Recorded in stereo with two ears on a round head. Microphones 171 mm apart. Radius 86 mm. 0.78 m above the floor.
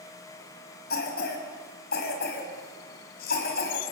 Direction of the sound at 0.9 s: 60° left (ahead or behind).